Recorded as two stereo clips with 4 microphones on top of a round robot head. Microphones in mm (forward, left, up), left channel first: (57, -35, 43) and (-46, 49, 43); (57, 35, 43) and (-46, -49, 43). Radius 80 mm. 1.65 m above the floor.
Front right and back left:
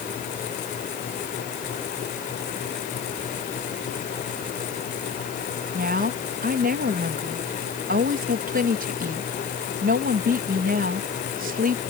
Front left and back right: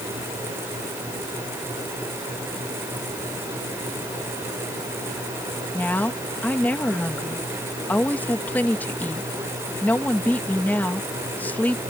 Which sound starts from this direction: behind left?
A woman speaking, at 5.7 s.